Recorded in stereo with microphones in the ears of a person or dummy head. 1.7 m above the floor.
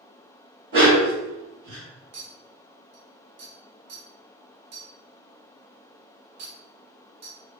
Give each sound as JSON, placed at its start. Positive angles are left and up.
{"t": 0.7, "sound": "a dog barking", "side_deg": -50, "distance_m": 2.0}
{"t": 2.1, "sound": "a clink", "side_deg": -55, "distance_m": 1.2}